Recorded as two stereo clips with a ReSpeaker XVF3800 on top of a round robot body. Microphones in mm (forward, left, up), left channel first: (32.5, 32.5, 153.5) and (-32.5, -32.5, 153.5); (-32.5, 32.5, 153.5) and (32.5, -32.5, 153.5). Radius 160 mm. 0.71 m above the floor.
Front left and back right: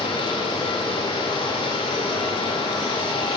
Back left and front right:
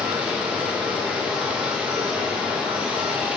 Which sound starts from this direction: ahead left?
Running water, at 0.0 s.